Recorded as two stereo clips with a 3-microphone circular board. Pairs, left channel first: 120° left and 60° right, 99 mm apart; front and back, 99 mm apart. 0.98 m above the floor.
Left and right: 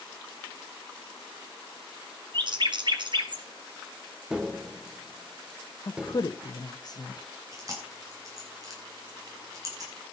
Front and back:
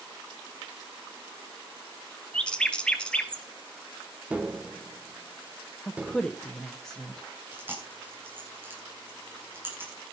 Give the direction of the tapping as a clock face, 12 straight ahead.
4 o'clock.